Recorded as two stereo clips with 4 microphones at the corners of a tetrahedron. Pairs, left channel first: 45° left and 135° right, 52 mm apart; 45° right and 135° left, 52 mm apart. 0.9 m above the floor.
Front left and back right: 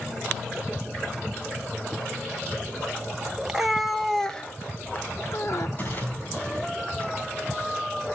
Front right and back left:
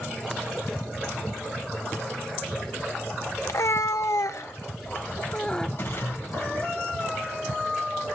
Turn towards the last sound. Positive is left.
turn(degrees=-5)